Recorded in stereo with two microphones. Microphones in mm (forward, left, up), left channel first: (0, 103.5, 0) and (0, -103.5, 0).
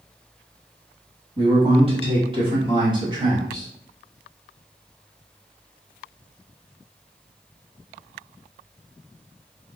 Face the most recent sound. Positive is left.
turn(degrees=-15)  # may be behind; listen again after turning